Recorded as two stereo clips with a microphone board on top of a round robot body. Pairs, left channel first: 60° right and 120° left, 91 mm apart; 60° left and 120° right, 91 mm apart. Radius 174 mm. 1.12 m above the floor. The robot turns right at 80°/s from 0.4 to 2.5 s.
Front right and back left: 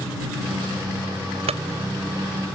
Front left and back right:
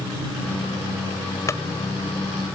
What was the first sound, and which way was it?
A clunk, 120° left.